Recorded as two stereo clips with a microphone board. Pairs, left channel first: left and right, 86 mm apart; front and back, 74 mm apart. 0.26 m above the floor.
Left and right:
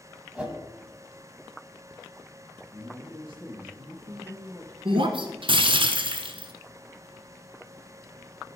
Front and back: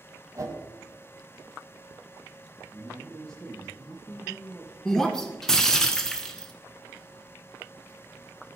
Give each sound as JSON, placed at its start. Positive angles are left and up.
{"t": 0.3, "sound": "a whoosh", "azimuth_deg": -165, "distance_m": 1.3}
{"t": 2.7, "sound": "a man speaking", "azimuth_deg": -75, "distance_m": 4.5}
{"t": 4.8, "sound": "breaking glass", "azimuth_deg": -85, "distance_m": 0.9}